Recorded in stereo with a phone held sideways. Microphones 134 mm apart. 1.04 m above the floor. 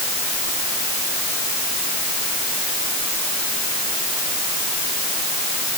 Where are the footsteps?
I don't hear footsteps.